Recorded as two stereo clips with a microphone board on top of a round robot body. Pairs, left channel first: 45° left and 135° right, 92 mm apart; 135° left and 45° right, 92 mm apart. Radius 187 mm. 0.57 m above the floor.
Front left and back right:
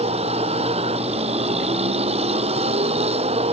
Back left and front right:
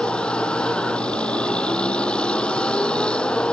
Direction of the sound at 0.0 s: 145° right.